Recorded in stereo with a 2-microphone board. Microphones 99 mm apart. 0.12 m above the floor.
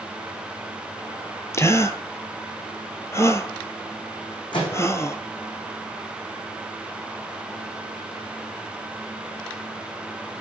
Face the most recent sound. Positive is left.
turn(degrees=50)  # may be behind; listen again after turning